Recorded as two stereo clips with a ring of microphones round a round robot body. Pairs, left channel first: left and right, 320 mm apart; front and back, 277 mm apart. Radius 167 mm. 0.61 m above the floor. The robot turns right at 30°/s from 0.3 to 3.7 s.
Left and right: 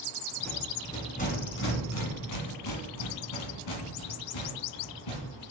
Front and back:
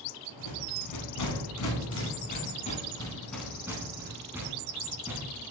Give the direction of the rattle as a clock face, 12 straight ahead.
12 o'clock.